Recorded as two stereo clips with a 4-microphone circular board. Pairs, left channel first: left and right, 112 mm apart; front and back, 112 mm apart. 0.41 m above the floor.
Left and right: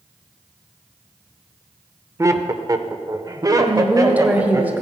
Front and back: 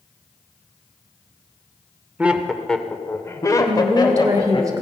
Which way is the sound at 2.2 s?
115° right.